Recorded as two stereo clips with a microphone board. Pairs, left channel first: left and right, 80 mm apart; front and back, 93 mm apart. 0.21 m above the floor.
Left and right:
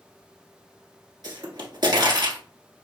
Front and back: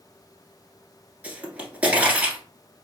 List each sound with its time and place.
1.2 s a pop: 105° right, 1.5 m